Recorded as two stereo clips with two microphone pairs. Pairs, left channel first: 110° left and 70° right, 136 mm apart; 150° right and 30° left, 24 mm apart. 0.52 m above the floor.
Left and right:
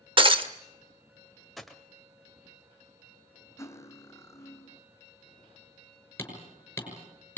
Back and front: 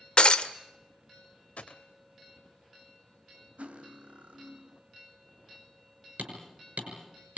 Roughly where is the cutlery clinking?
Ahead left.